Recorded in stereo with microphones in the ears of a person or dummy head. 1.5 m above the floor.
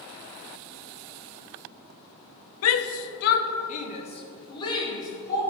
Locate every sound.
2.6 s a shout: 85° left, 1.0 m; by 5.4 s 20° left (ahead or behind), 3 m